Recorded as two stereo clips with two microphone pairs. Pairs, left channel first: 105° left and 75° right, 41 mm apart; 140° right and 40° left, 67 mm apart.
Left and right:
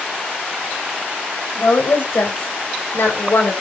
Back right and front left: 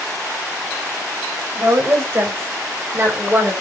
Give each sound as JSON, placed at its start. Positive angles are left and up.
{"t": 1.6, "sound": "a woman speaking", "azimuth_deg": 90, "distance_m": 4.5}